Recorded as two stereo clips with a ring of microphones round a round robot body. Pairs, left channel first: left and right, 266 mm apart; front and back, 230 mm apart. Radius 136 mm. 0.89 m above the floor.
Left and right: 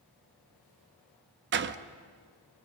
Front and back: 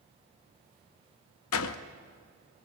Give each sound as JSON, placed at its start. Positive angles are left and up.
{"t": 1.5, "sound": "a door slam", "azimuth_deg": -40, "distance_m": 0.6}